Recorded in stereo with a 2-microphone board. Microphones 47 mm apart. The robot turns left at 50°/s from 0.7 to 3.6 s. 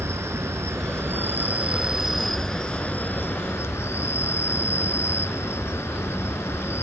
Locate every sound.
0.0 s an insect: 100° right, 1.1 m; by 6.8 s 115° left, 1.1 m